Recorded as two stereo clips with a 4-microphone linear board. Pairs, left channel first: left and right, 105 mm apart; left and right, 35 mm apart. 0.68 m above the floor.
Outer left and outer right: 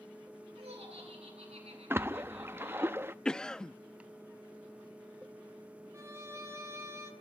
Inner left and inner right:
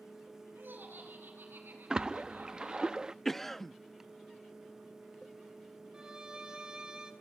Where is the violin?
25° right (ahead or behind), 3 m.